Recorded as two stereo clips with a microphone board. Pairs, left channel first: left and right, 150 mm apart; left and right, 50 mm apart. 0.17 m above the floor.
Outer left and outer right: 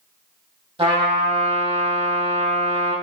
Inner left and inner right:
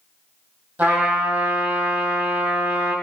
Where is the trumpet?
35° right (ahead or behind), 3.5 m.